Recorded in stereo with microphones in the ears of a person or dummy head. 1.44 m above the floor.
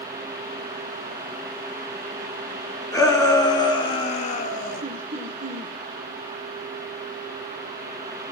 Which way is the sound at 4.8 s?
40° right (ahead or behind).